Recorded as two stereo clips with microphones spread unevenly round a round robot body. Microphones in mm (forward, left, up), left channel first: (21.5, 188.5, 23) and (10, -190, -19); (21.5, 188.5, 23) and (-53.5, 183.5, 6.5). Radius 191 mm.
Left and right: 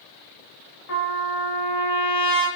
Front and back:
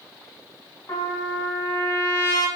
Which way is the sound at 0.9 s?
40° left.